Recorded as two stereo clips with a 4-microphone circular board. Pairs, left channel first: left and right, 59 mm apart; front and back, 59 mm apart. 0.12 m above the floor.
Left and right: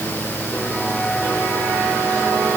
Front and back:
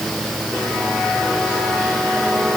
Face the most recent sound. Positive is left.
No sound to turn to.